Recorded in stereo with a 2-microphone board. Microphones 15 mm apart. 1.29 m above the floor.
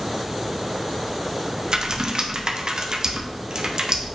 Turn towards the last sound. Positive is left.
turn(degrees=-40)  # may be behind; listen again after turning